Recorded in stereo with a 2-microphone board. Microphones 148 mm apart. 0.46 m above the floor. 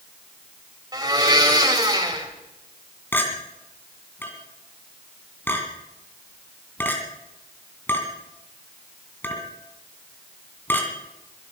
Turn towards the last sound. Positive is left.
turn(degrees=15)  # may be behind; listen again after turning